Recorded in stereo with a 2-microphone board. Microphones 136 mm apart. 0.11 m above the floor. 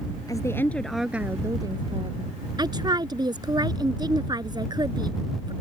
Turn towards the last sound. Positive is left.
turn(degrees=-30)  # may be behind; listen again after turning